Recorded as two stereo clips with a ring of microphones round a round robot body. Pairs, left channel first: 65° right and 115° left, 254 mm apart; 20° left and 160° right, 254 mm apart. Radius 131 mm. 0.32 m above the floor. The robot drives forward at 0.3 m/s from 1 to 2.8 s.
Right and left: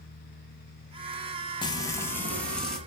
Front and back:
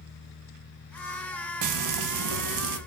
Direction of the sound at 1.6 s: 140° right.